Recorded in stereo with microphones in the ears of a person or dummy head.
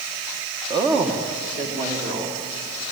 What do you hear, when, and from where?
0.7 s a woman speaking: 25° right (ahead or behind), 1.2 m; by 2.4 s 35° right (ahead or behind), 2.5 m